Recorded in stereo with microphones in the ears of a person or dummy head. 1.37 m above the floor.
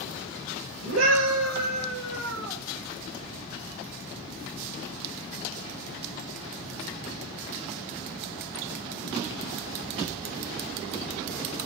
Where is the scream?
75° right (ahead or behind), 5 m; by 2.6 s 85° right, 6 m.